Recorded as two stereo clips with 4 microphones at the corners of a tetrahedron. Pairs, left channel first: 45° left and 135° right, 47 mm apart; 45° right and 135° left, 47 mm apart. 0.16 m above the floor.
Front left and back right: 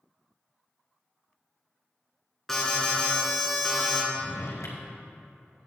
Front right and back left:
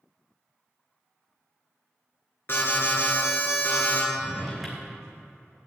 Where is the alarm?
35° right, 3 m.